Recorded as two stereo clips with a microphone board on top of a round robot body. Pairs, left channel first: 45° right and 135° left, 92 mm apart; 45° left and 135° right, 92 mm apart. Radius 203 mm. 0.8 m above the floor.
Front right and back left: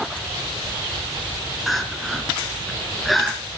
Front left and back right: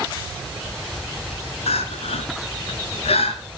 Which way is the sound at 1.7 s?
45° left.